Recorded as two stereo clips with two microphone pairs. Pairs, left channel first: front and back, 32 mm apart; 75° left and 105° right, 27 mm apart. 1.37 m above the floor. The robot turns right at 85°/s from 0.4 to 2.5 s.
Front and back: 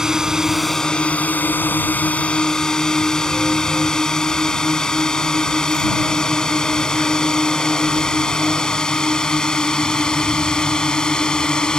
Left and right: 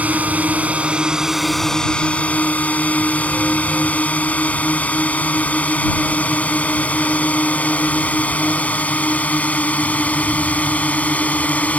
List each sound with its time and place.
0.0 s a drone: 105° right; by 11.8 s 65° left